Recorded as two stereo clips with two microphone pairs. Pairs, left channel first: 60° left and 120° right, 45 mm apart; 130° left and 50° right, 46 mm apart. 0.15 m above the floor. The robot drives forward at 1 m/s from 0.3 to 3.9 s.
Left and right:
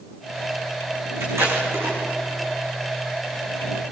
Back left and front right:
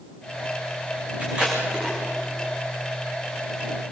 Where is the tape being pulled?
115° right, 8.5 m; by 2.0 s 120° right, 8.5 m.